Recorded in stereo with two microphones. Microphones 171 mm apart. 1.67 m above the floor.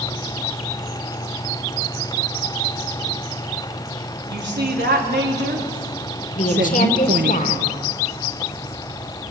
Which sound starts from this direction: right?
A woman speaking, at 4.3 s.